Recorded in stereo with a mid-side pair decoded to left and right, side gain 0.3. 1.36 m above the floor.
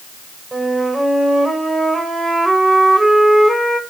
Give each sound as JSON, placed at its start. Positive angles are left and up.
{"t": 0.5, "sound": "a flute", "azimuth_deg": -25, "distance_m": 6.0}